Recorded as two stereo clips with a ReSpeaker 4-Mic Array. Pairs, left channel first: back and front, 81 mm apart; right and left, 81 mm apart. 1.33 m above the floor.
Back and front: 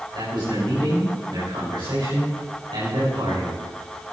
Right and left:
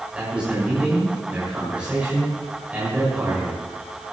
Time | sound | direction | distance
0.1 | a man speaking | 15° left | 6.5 m